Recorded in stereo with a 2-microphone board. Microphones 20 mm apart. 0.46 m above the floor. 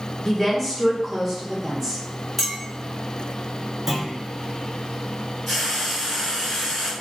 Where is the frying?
Centre (ahead or behind), 1.7 m.